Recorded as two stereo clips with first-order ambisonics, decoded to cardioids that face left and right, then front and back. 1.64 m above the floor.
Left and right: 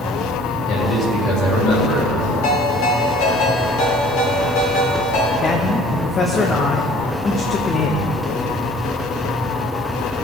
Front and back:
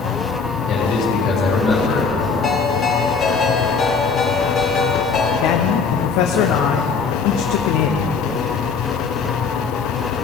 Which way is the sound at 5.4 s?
25° left.